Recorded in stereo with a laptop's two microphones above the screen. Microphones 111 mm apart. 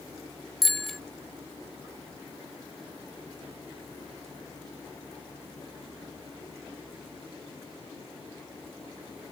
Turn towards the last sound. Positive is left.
turn(degrees=0)  # may be behind; listen again after turning